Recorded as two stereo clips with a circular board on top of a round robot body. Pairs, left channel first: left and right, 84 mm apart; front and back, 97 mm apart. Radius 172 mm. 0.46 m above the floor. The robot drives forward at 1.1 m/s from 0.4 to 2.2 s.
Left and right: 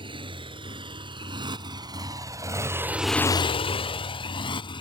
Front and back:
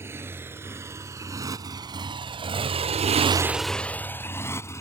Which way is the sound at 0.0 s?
115° right.